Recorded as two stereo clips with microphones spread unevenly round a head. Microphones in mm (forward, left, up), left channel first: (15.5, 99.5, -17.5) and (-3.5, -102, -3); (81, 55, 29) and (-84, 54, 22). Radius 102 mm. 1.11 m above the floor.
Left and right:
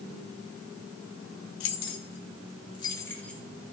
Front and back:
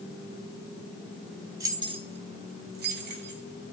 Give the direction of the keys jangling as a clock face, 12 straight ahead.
8 o'clock.